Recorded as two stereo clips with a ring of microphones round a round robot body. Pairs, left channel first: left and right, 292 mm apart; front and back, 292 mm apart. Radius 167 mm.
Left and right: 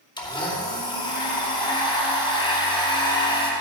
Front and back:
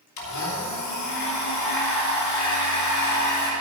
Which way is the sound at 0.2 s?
15° left.